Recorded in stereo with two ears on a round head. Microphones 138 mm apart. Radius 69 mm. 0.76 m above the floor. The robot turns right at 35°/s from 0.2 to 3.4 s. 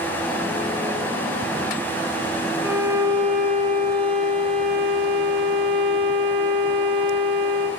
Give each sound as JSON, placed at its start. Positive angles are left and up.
{"t": 2.6, "sound": "a violin", "side_deg": -10, "distance_m": 9.0}